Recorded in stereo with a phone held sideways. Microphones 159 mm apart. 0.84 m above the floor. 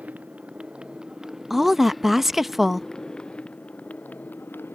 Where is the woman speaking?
Centre (ahead or behind).